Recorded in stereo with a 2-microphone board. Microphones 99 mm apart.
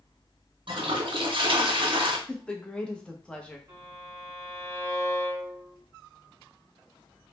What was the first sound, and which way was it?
A toilet flushing, 55° right (ahead or behind).